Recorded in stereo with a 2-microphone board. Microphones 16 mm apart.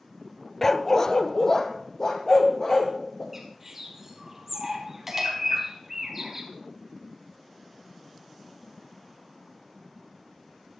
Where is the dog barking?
20° left (ahead or behind), 0.6 m; by 3.2 s 40° left (ahead or behind), 4 m.